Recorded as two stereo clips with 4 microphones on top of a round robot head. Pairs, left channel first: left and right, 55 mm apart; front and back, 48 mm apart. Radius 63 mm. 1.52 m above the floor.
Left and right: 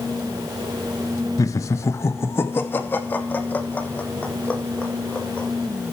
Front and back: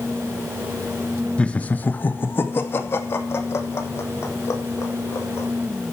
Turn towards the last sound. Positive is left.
turn(degrees=25)